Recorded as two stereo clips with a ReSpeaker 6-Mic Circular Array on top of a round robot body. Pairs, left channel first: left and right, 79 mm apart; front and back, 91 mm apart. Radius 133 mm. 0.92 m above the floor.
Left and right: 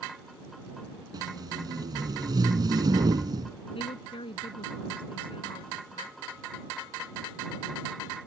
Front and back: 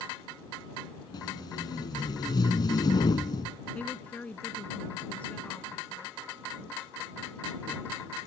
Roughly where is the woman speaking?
Left.